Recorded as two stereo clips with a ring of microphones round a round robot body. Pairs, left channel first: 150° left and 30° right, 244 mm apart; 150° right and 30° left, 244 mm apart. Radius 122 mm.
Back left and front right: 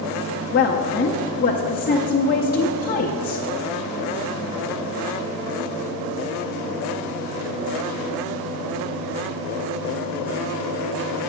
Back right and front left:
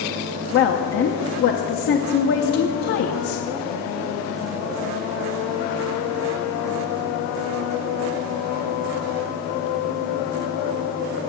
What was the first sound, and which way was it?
A woman speaking, 170° right.